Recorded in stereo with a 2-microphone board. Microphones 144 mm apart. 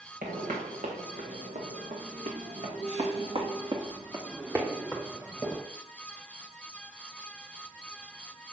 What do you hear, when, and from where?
0.2 s footsteps: 80° right, 2.5 m; by 5.6 s centre (ahead or behind), 1.9 m